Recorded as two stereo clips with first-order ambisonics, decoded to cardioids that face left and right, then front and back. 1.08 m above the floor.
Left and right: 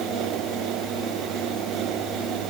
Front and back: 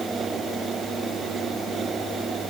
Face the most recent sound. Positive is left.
No sound to turn to.